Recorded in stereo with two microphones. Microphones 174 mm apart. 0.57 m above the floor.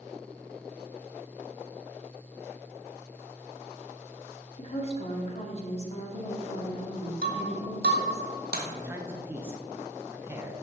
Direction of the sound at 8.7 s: 15° right (ahead or behind).